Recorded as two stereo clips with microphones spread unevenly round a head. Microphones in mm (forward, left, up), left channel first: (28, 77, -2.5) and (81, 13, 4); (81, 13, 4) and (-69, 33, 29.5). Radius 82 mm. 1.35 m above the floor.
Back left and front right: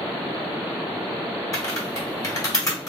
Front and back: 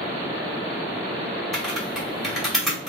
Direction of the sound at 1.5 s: 85° left.